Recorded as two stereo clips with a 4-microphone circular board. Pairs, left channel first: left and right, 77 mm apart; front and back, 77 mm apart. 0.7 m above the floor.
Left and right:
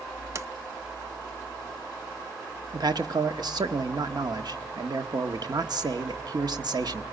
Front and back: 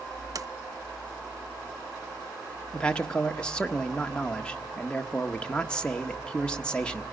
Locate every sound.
0.3 s a sliding door: 140° right, 0.8 m
2.7 s a man speaking: 75° right, 1.1 m